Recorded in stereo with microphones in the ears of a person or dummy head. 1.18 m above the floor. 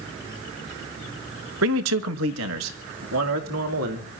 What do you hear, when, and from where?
1.6 s a man speaking: 80° right, 0.9 m; by 4.1 s 85° right, 2.5 m